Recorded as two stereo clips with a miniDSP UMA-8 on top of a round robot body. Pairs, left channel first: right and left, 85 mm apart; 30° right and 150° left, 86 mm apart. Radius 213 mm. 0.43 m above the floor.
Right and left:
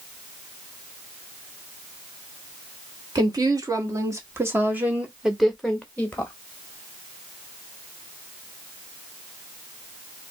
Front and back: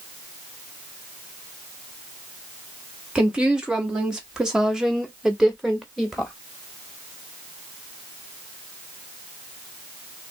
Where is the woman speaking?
75° left, 1.7 m; by 6.3 s 115° right, 1.2 m.